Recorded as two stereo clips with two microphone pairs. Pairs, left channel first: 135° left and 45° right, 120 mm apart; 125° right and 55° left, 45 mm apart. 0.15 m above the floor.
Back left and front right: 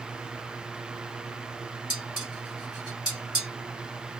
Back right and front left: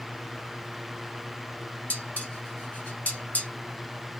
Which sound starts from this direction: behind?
Dishes clattering, at 1.9 s.